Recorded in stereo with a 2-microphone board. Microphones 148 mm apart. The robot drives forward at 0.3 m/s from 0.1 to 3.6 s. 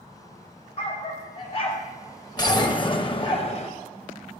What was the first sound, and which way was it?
A dog barking, 40° left (ahead or behind).